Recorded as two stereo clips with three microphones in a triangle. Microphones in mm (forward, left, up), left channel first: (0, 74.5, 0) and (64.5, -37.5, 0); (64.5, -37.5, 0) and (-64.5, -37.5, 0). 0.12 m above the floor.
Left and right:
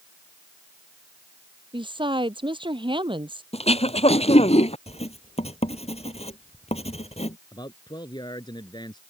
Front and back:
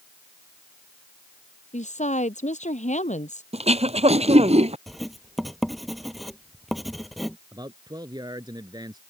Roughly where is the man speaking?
Behind left.